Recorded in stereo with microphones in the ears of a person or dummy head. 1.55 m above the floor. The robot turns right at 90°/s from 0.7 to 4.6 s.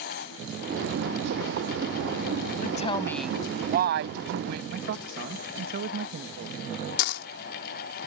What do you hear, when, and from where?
2.6 s a woman speaking: 125° left; by 4.6 s 55° right
4.7 s a man speaking: 65° right (ahead or behind)
7.0 s a dropped coin: 60° left (ahead or behind)